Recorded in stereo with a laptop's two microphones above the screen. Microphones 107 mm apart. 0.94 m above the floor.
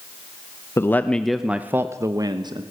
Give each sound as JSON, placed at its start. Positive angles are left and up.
{"t": 0.8, "sound": "a man speaking", "side_deg": 25, "distance_m": 0.7}